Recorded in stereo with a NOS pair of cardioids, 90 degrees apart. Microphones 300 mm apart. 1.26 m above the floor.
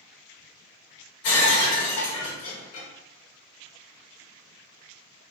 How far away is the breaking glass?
About 1.5 m.